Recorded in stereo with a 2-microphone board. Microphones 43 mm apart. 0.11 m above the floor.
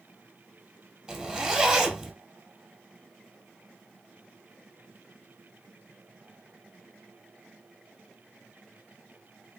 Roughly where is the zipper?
Centre.